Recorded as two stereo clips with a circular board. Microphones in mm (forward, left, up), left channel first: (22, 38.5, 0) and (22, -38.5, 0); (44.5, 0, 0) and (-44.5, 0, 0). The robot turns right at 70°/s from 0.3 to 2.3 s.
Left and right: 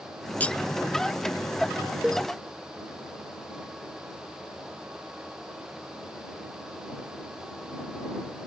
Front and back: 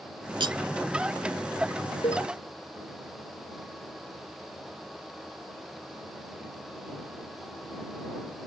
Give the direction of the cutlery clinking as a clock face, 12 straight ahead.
7 o'clock.